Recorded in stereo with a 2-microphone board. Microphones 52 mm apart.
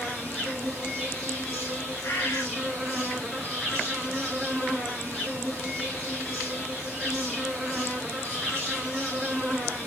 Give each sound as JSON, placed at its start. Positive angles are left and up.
{"t": 0.0, "sound": "an insect", "side_deg": 0, "distance_m": 2.0}
{"t": 2.0, "sound": "a bird", "side_deg": 50, "distance_m": 5.5}